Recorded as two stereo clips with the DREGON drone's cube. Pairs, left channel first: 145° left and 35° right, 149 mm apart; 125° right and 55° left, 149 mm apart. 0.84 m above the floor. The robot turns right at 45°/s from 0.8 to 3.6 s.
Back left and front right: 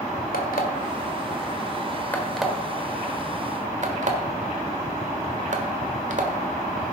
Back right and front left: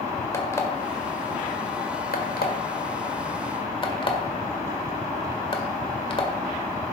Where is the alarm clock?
165° left, 1.8 m; by 6.9 s 70° right, 1.8 m.